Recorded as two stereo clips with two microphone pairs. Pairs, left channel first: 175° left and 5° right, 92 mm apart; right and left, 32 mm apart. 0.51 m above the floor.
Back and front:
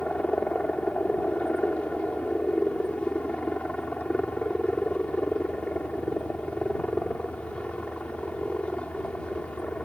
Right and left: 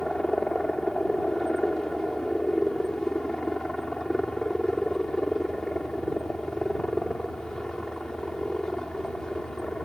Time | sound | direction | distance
0.0 | a helicopter | 125° right | ?